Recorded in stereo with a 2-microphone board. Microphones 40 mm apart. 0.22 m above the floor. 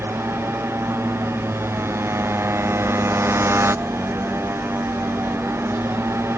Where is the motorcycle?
90° right.